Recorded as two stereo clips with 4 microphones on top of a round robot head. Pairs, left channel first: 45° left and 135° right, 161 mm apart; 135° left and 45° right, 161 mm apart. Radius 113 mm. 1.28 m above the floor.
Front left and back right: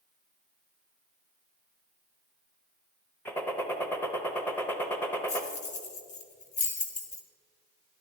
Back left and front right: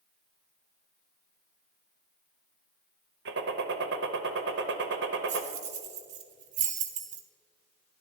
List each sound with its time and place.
3.2 s a gunshot: 30° right, 0.7 m
5.3 s keys jangling: straight ahead, 0.9 m